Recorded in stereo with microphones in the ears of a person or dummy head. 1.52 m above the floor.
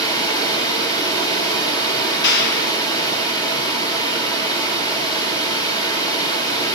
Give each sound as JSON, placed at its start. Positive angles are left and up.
{"t": 0.0, "sound": "running water", "side_deg": 20, "distance_m": 1.7}
{"t": 2.2, "sound": "a clap", "side_deg": 60, "distance_m": 1.3}